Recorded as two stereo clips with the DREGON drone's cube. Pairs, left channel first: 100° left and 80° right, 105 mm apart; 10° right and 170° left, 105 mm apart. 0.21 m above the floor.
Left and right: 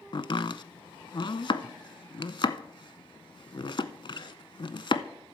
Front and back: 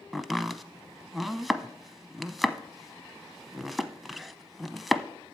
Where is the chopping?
80° left, 0.6 m.